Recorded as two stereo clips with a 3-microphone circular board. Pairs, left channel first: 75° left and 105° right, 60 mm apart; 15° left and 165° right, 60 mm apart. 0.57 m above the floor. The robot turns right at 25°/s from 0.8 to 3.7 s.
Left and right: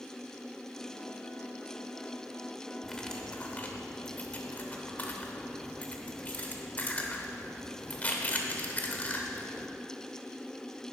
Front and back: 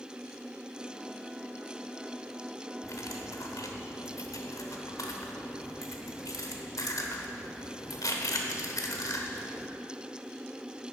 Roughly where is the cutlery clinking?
Ahead.